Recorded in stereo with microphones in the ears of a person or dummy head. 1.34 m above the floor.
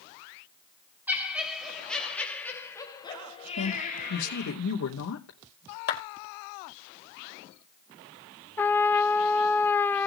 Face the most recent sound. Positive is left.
turn(degrees=10)  # may be behind; listen again after turning